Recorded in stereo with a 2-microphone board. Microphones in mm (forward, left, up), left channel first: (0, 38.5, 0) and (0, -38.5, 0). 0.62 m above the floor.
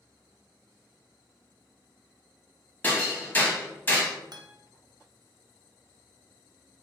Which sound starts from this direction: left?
Hammering, at 2.8 s.